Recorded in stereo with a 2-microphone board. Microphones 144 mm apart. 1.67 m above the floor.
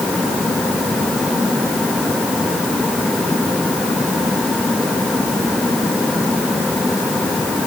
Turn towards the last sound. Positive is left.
No sound to turn to.